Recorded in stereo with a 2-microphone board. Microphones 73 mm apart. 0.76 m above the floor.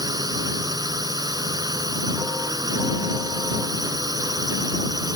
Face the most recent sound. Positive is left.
turn(degrees=-65)  # may be behind; listen again after turning